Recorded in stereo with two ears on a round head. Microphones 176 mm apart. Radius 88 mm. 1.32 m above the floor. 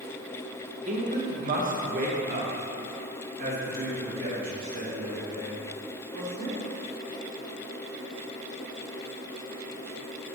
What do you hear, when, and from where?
0.9 s a man speaking: 35° right (ahead or behind), 1.2 m; by 6.6 s 50° right (ahead or behind), 4 m